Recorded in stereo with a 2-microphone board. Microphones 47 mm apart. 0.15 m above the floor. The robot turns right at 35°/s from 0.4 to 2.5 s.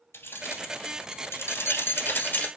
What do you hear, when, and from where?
0.1 s keys jangling: 60° left (ahead or behind), 1.8 m; by 2.5 s 35° left (ahead or behind), 1.8 m